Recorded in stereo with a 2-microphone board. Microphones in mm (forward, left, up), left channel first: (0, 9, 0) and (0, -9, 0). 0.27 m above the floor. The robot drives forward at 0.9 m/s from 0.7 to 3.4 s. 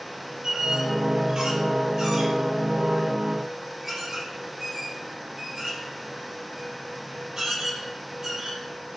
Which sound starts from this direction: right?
A squeak, at 0.4 s.